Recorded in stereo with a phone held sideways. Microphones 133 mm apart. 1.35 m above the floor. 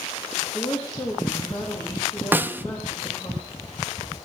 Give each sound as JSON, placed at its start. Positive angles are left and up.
{"t": 0.3, "sound": "a woman speaking", "side_deg": 25, "distance_m": 2.5}
{"t": 2.3, "sound": "a snare drum", "side_deg": -15, "distance_m": 0.5}